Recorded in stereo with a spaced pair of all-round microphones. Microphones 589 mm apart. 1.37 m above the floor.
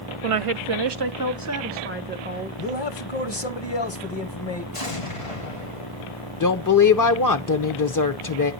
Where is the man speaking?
45° left (ahead or behind), 1.0 m.